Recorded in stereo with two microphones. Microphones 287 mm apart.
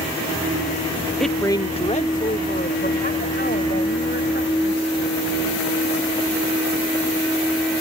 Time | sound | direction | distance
1.2 | a woman speaking | centre (ahead or behind) | ?